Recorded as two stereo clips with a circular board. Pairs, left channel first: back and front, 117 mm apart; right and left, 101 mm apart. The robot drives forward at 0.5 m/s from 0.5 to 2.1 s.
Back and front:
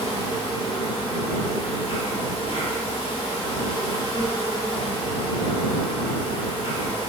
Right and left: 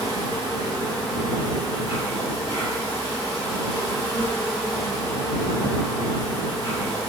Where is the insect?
135° left, 1.6 m; by 7.1 s 150° left, 2.5 m.